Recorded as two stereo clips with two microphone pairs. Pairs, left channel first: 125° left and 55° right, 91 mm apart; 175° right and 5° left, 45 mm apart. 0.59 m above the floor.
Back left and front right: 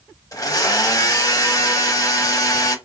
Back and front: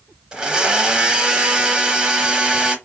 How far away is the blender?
About 0.7 m.